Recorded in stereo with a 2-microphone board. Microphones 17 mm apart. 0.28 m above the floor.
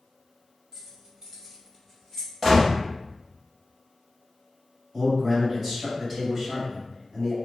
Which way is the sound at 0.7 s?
35° right (ahead or behind).